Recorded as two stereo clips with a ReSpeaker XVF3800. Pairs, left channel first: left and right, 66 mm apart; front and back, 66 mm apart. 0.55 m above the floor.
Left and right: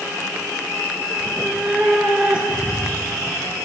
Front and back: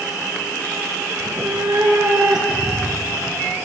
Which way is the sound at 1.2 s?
170° left.